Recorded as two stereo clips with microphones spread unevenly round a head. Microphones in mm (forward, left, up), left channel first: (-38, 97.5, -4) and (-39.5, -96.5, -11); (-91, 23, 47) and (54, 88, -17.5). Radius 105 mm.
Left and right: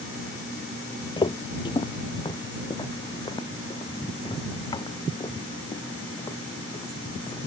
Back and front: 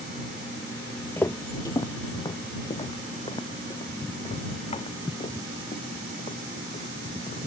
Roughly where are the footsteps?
Behind left.